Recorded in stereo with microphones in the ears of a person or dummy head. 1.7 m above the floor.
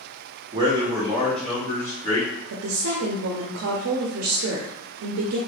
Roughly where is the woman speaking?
Right.